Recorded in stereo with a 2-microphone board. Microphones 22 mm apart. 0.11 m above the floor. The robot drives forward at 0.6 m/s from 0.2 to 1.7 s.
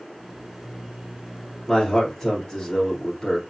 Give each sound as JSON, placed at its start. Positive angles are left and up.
{"t": 1.7, "sound": "a man speaking", "side_deg": 20, "distance_m": 1.6}